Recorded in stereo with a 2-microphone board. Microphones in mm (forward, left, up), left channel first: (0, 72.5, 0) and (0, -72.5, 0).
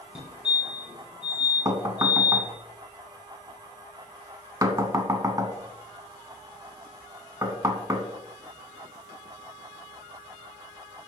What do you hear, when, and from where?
0.1 s a fire alarm: 10° right (ahead or behind), 2 m
1.6 s knocking: 25° right (ahead or behind), 0.8 m